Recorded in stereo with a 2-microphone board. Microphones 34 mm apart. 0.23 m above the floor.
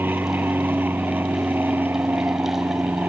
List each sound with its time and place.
0.0 s an aircraft: 70° right (ahead or behind)